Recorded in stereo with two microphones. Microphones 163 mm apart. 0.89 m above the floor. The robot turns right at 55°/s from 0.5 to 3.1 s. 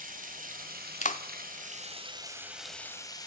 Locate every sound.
0.0 s running water: 120° right, 3 m; by 3.3 s 25° left, 3 m
1.0 s a clap: 50° left (ahead or behind), 1.3 m; by 1.2 s 60° left (ahead or behind), 1.3 m